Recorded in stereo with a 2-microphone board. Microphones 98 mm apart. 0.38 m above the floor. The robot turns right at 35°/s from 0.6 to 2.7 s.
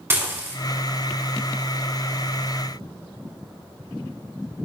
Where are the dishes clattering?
25° right (ahead or behind), 2 m.